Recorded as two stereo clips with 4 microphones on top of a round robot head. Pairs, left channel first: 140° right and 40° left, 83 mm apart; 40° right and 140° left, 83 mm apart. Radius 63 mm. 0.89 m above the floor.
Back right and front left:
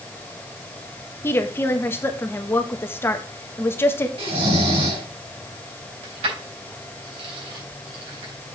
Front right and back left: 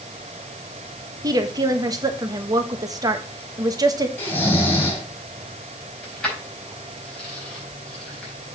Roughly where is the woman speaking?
Behind.